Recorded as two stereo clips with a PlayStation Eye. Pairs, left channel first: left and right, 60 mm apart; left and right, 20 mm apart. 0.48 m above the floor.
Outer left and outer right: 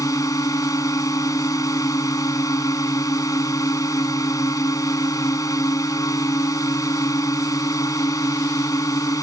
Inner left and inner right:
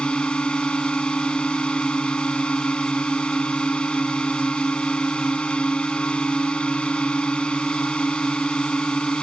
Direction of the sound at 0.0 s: 70° left (ahead or behind).